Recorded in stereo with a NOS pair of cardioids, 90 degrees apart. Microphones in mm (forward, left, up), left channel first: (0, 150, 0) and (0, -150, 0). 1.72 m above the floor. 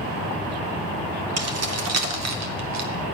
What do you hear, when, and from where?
1.4 s keys jangling: 55° right, 3 m; by 2.9 s 65° right, 3.5 m